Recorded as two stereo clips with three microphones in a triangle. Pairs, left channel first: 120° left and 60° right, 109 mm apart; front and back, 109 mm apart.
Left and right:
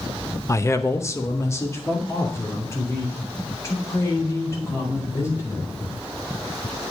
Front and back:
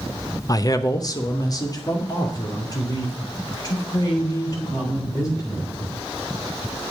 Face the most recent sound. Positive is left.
turn(degrees=55)